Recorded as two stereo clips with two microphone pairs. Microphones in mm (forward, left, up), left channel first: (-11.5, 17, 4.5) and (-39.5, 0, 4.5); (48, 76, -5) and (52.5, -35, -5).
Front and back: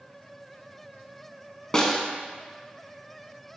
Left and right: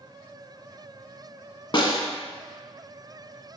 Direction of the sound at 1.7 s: 100° left.